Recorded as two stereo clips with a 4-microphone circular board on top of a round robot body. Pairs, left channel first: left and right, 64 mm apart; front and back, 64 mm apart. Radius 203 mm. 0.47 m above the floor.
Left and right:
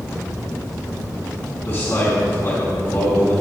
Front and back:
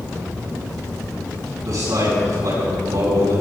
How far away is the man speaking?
About 5.5 m.